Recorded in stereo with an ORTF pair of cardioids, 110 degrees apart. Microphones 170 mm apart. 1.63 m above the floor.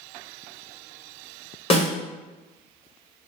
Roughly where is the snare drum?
Ahead left.